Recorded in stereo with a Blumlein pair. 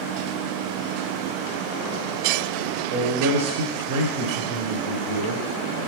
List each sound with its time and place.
2.9 s a man speaking: 55° right, 0.6 m